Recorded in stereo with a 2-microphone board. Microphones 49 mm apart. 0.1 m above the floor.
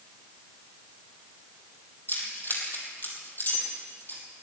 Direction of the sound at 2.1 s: 45° left (ahead or behind).